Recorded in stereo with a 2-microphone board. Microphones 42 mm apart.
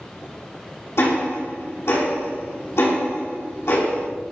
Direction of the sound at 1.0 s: 80° left.